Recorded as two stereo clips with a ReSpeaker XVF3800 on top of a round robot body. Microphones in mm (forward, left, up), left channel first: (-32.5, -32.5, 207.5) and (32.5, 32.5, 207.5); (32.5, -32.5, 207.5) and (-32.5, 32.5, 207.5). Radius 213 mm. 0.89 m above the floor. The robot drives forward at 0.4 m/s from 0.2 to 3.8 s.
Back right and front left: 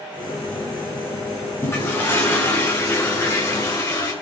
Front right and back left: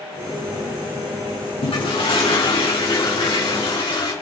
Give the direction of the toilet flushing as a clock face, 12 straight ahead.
2 o'clock.